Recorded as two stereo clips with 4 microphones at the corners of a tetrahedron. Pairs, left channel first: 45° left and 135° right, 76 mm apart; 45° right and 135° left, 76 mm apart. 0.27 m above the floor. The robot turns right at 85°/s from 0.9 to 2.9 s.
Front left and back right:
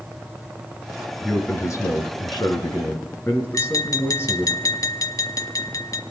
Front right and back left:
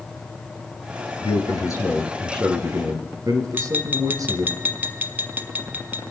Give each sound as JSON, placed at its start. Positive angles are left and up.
{"t": 1.2, "sound": "a man speaking", "azimuth_deg": -45, "distance_m": 4.0}
{"t": 3.5, "sound": "tapping", "azimuth_deg": 75, "distance_m": 1.2}